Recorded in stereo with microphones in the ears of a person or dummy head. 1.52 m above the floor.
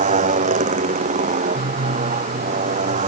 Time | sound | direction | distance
0.0 | a motorcycle | 45° right (ahead or behind) | ?